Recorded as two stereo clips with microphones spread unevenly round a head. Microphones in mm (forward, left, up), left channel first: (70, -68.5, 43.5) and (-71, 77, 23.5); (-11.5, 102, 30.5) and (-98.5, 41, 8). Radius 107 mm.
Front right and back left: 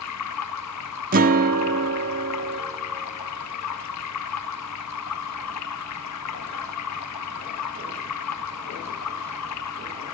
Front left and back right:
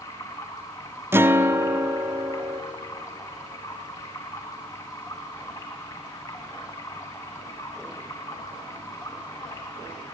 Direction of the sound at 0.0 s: 40° right.